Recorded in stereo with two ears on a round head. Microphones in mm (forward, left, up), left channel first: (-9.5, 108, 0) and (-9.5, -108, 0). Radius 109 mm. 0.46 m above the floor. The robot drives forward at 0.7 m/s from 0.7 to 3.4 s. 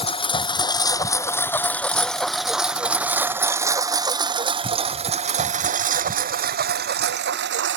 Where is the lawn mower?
25° left (ahead or behind); by 7.8 s 50° right (ahead or behind).